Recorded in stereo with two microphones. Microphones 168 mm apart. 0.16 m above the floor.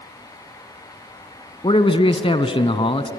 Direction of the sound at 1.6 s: 35° left (ahead or behind).